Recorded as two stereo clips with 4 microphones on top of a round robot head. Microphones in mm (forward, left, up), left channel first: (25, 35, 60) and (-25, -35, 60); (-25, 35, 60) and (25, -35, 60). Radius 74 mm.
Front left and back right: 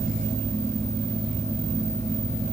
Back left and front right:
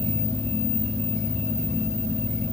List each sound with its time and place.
Only background noise.